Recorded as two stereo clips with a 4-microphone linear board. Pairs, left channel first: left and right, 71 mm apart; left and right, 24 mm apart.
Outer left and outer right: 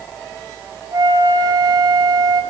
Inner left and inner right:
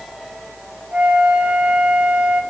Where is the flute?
60° right (ahead or behind), 1.0 m.